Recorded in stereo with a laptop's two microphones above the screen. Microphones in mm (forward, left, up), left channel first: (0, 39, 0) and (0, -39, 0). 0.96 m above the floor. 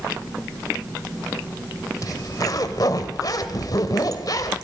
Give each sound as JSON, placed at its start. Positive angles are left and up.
{"t": 2.0, "sound": "a zipper", "side_deg": 50, "distance_m": 1.6}